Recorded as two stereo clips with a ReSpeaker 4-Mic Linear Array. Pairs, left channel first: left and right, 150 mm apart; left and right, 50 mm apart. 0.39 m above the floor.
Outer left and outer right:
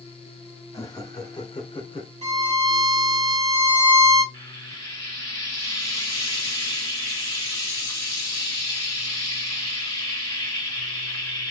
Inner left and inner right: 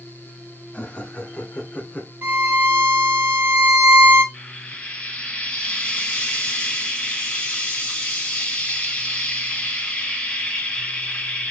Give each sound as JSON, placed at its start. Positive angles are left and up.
{"t": 0.7, "sound": "laughter", "side_deg": 20, "distance_m": 1.4}
{"t": 2.2, "sound": "a violin", "side_deg": -45, "distance_m": 1.1}
{"t": 4.3, "sound": "frying", "side_deg": 20, "distance_m": 1.5}